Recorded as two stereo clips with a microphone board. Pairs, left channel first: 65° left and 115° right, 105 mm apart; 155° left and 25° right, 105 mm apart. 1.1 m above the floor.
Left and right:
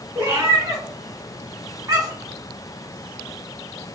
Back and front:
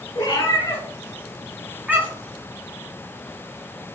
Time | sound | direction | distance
0.1 | a cat meowing | 170° right | 1.8 m